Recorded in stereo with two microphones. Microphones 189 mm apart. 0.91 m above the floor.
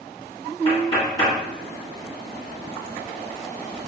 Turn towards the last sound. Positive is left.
turn(degrees=25)  # may be behind; listen again after turning